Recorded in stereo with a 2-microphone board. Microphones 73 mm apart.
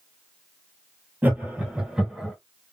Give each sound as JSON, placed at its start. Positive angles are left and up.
{"t": 1.2, "sound": "laughter", "side_deg": -25, "distance_m": 1.8}